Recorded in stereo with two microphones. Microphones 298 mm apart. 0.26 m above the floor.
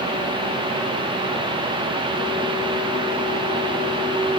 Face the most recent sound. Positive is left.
No sound to turn to.